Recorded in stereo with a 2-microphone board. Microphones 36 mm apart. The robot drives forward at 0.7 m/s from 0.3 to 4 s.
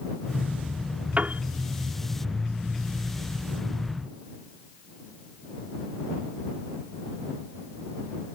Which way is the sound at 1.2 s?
40° right (ahead or behind).